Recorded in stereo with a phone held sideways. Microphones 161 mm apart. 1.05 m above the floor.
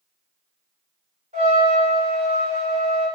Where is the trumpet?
50° right (ahead or behind), 1.8 m.